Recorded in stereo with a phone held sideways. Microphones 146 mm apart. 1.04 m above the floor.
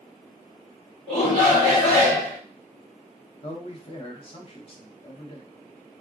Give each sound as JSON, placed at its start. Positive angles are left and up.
{"t": 1.1, "sound": "a shout", "side_deg": 45, "distance_m": 2.0}
{"t": 3.4, "sound": "a man speaking", "side_deg": 40, "distance_m": 0.7}